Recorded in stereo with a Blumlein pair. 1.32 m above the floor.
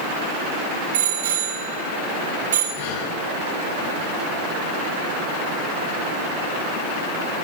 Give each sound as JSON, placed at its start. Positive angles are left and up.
{"t": 0.9, "sound": "a bicycle bell", "azimuth_deg": -60, "distance_m": 8.5}
{"t": 2.8, "sound": "breathing", "azimuth_deg": 55, "distance_m": 6.0}